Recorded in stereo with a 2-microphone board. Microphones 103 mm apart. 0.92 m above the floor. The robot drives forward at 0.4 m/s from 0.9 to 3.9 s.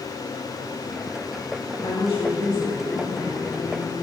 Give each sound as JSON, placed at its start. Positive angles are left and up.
{"t": 1.8, "sound": "a woman speaking", "side_deg": 60, "distance_m": 1.6}